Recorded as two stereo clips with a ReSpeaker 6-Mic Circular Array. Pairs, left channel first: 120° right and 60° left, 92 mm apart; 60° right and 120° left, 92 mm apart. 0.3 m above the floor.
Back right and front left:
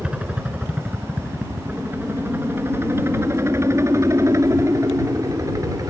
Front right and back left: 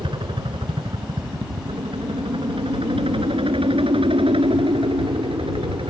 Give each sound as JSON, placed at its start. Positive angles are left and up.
{"t": 0.0, "sound": "a helicopter", "azimuth_deg": 140}